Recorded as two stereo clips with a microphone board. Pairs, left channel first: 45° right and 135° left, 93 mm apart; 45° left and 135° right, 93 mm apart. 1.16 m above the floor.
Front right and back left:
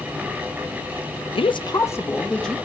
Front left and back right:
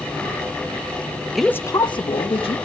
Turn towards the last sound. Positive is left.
turn(degrees=40)